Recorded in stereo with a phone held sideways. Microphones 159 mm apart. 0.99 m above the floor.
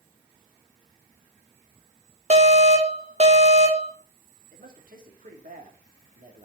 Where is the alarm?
50° right (ahead or behind), 1.7 m.